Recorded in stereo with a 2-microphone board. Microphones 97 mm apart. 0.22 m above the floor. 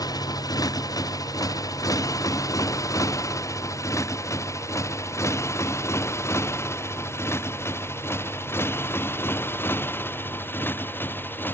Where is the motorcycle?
40° left (ahead or behind); by 11.6 s 20° left (ahead or behind).